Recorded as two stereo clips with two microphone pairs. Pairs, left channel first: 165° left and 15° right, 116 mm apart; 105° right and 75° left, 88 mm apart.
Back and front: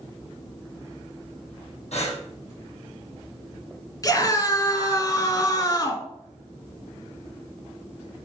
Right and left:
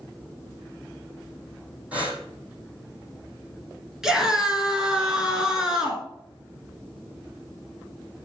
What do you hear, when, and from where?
1.9 s breathing: 150° left, 3.5 m
4.0 s a scream: 155° left, 1.7 m